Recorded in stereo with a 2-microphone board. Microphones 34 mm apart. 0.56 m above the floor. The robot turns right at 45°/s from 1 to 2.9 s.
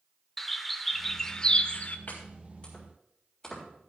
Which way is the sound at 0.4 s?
5° left (ahead or behind).